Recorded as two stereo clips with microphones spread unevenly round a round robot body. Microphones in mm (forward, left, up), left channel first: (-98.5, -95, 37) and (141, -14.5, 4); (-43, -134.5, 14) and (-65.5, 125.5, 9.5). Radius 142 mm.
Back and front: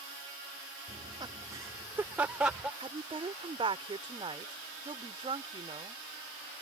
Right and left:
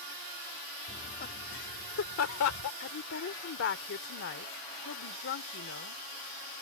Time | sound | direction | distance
0.9 | laughter | 25° right | ?
2.8 | a woman speaking | 45° right | ?